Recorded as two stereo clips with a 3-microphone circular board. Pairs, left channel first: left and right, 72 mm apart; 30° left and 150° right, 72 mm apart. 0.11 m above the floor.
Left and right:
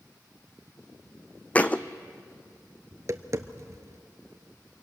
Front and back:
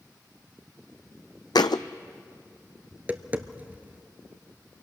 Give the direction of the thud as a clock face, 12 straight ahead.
11 o'clock.